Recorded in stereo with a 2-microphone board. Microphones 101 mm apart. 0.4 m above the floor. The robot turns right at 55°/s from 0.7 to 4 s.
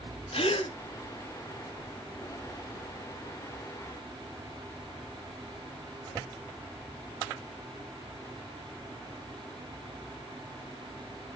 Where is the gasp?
70° left (ahead or behind), 0.7 m; by 0.7 s 75° left (ahead or behind), 0.7 m.